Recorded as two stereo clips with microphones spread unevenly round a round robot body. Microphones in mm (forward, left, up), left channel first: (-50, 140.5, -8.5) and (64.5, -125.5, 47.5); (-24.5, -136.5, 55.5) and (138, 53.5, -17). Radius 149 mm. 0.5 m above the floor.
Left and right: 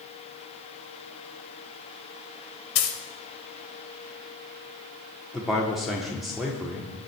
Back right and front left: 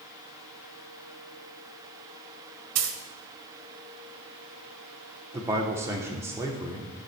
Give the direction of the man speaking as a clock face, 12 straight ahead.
10 o'clock.